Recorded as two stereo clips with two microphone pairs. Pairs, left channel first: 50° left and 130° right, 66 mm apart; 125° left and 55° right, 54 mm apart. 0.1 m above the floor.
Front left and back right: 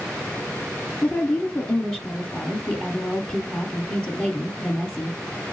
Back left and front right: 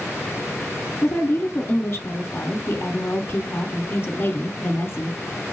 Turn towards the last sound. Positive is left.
turn(degrees=120)